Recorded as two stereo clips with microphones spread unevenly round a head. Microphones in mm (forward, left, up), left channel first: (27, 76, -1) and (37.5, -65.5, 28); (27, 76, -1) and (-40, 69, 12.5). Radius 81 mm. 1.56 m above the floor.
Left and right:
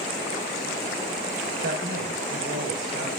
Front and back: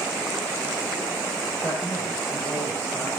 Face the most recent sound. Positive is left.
turn(degrees=-60)